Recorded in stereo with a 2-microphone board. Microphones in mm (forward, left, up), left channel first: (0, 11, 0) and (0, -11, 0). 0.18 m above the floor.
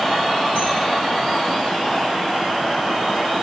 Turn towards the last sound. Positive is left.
turn(degrees=-75)  # may be behind; listen again after turning